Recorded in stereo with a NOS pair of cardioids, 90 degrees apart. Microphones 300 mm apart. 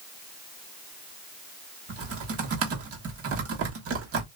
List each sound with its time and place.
1.9 s typing on a keyboard: 50° right, 1.1 m